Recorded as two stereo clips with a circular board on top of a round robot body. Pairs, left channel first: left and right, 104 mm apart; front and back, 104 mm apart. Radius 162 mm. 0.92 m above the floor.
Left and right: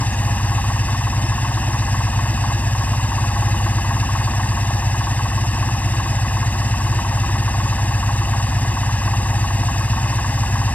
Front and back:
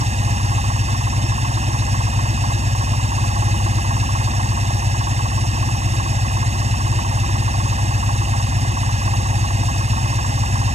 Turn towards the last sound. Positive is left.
turn(degrees=165)